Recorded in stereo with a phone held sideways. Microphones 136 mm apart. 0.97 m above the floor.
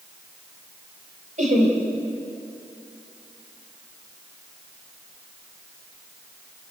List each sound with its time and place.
1.4 s laughter: 65° right (ahead or behind), 4 m